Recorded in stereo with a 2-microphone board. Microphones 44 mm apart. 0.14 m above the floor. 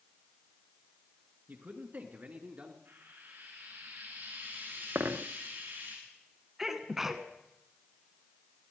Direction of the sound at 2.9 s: 55° right (ahead or behind).